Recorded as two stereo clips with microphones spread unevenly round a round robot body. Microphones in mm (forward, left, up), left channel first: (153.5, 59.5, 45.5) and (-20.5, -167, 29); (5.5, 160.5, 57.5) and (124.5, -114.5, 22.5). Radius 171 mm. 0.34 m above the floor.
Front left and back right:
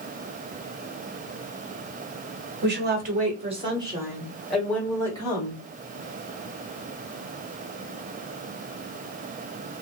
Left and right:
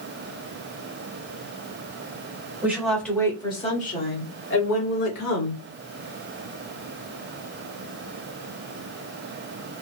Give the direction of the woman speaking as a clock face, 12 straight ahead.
5 o'clock.